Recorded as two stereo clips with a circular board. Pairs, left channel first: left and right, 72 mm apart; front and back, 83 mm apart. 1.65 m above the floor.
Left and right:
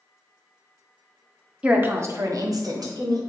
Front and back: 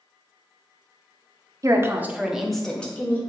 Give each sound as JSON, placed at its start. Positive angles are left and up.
{"t": 1.6, "sound": "a woman speaking", "azimuth_deg": -155, "distance_m": 0.5}